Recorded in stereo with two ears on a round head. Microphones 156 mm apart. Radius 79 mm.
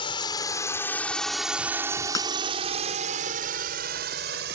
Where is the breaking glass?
20° left (ahead or behind).